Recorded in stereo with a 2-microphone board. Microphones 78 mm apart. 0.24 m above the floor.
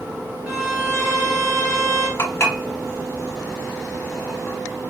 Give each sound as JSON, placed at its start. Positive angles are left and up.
{"t": 0.5, "sound": "a violin", "side_deg": -10, "distance_m": 1.8}
{"t": 2.2, "sound": "dishes clattering", "side_deg": 35, "distance_m": 0.9}